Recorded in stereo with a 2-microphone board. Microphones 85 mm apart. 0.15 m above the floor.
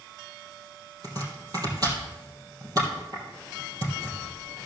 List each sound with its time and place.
1.0 s chopping: 50° right (ahead or behind), 3 m